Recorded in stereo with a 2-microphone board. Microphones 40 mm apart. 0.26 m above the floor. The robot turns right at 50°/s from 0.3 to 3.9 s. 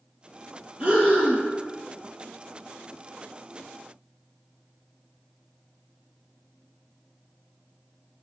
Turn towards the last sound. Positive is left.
turn(degrees=10)